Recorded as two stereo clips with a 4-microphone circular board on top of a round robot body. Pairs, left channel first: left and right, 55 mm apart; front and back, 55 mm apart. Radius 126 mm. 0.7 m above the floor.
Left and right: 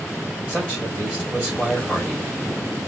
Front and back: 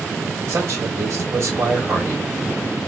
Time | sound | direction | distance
0.5 | a man speaking | 155° right | 3 m